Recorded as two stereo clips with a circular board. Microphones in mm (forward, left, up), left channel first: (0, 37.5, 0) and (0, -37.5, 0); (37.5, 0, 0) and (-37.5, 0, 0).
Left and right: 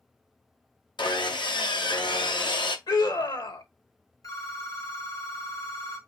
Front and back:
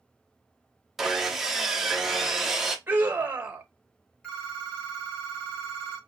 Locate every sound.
1.0 s sawing: 95° left, 0.8 m
2.9 s a scream: 115° left, 1.1 m
4.2 s a phone ringing: 75° left, 2.5 m